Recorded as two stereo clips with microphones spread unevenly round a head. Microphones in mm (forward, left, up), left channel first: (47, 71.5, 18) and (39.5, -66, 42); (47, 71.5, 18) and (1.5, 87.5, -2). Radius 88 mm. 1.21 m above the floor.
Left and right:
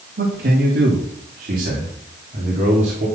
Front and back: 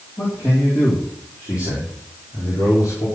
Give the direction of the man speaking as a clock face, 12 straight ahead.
3 o'clock.